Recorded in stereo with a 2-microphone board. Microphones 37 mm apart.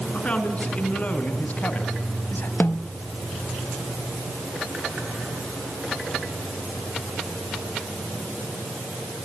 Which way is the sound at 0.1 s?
35° left (ahead or behind).